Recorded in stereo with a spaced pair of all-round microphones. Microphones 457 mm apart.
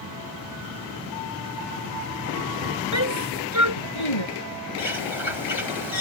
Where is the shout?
85° left.